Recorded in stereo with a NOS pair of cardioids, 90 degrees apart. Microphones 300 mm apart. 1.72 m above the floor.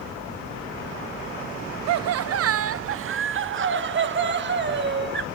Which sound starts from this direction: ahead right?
Laughter, at 1.9 s.